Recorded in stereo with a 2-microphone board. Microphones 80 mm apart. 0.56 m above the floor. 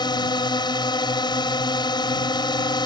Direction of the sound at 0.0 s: 65° left (ahead or behind).